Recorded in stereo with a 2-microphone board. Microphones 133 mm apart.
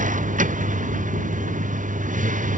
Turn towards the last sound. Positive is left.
turn(degrees=-80)